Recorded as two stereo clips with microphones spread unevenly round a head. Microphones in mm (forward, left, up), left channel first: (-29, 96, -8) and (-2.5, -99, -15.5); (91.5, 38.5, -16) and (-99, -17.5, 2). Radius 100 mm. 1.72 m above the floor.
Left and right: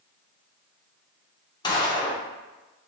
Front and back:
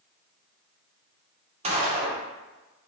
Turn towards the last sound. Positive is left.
turn(degrees=155)